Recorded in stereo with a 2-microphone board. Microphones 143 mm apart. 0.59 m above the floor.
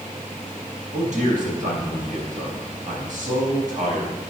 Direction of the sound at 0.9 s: 65° right (ahead or behind).